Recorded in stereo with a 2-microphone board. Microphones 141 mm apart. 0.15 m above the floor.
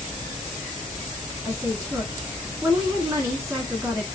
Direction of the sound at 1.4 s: 20° right (ahead or behind).